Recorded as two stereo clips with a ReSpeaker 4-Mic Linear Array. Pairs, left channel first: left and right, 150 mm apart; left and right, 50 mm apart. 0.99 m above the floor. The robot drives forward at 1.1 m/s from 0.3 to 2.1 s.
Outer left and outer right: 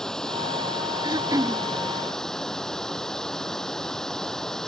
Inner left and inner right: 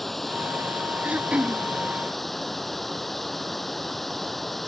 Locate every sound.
0.0 s running water: 5° left (ahead or behind)
1.0 s throat clearing: 30° right (ahead or behind); by 1.6 s 20° right (ahead or behind)